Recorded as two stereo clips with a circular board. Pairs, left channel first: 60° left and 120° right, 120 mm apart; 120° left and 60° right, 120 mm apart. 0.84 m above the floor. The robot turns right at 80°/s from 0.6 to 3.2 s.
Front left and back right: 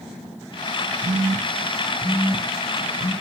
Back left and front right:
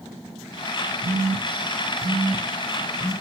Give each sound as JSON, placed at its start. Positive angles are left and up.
{"t": 1.0, "sound": "a phone buzzing", "azimuth_deg": -120, "distance_m": 1.8}